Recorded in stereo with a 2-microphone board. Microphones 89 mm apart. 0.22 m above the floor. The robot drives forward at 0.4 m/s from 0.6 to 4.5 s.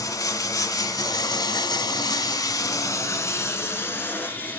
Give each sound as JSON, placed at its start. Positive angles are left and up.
{"t": 0.0, "sound": "running water", "side_deg": 45, "distance_m": 0.8}